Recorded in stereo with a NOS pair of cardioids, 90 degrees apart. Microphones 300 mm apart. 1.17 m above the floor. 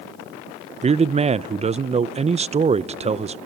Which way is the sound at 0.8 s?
20° right.